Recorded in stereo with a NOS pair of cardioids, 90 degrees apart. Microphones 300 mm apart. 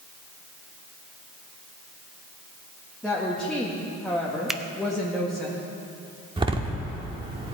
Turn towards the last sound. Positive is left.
turn(degrees=-15)